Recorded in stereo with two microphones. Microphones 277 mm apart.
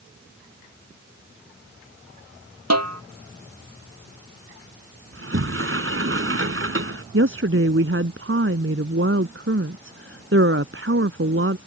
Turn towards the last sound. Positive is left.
turn(degrees=-50)  # may be behind; listen again after turning